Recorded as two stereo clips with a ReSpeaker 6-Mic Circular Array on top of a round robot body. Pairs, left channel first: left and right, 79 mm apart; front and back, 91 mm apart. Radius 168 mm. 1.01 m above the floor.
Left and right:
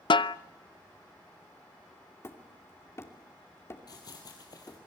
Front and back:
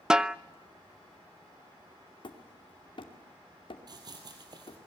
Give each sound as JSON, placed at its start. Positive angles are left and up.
{"t": 0.1, "sound": "a snare drum", "azimuth_deg": 95, "distance_m": 0.6}
{"t": 2.2, "sound": "hammering", "azimuth_deg": 35, "distance_m": 2.5}
{"t": 3.9, "sound": "running footsteps", "azimuth_deg": 135, "distance_m": 2.5}